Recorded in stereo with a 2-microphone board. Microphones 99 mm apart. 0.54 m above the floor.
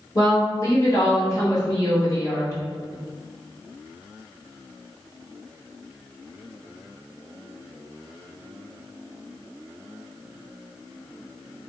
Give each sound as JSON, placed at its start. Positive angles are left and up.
{"t": 0.1, "sound": "a woman speaking", "side_deg": 35, "distance_m": 1.4}